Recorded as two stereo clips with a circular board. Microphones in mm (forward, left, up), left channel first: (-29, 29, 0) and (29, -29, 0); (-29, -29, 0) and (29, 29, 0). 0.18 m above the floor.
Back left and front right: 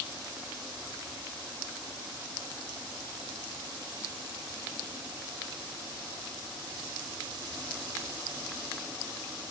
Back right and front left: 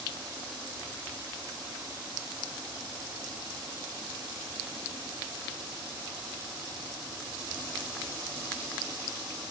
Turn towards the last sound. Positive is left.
No sound to turn to.